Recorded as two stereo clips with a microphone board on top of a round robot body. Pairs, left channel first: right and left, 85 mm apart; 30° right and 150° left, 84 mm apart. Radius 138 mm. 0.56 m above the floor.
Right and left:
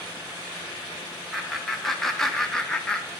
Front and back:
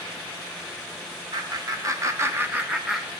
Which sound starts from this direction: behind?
Laughter, at 1.3 s.